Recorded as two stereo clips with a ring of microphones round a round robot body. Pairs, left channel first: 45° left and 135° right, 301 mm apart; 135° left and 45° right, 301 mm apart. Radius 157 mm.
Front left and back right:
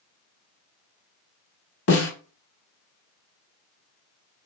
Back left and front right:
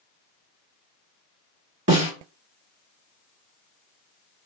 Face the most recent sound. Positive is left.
turn(degrees=5)